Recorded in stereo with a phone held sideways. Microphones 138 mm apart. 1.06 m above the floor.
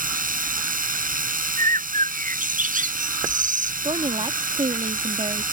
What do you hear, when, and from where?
0.0 s a machine running: 90° right
1.6 s a bird: 75° right (ahead or behind)
3.8 s a woman speaking: 45° right (ahead or behind)